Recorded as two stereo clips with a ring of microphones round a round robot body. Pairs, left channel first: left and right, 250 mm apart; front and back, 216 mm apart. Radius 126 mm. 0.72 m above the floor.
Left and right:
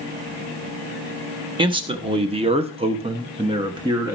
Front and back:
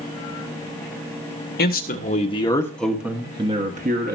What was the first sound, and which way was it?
A man speaking, 25° right.